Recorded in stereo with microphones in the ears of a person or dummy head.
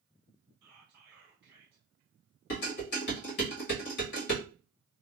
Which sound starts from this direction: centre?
Whispering, at 0.6 s.